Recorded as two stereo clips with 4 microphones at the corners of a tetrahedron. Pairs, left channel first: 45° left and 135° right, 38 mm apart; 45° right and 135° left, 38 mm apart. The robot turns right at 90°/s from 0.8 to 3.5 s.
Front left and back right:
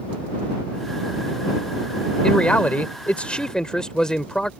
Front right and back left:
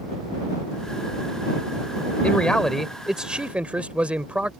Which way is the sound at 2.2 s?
15° right.